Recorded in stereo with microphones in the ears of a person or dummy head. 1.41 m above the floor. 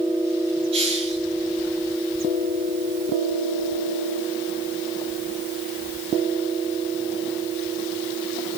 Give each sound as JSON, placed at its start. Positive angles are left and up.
{"t": 0.7, "sound": "a hiss", "side_deg": -30, "distance_m": 5.5}